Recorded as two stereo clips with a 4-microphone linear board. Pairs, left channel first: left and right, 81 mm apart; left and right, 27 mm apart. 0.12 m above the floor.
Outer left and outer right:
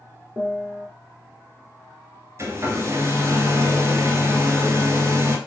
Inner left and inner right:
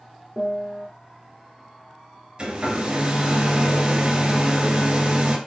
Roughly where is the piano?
Right.